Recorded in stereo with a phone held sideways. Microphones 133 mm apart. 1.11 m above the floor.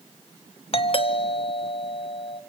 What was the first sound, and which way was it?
A doorbell, 45° left (ahead or behind).